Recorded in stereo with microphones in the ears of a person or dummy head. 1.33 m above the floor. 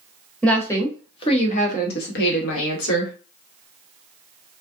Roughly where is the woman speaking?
Centre.